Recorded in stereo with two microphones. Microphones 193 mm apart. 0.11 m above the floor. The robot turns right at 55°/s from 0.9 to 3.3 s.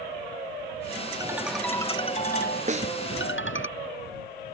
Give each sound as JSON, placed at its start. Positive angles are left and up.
{"t": 1.2, "sound": "a ringtone", "azimuth_deg": -20}
{"t": 2.7, "sound": "a snare drum", "side_deg": -40}